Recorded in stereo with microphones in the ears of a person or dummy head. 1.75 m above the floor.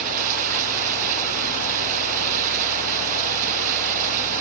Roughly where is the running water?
Right.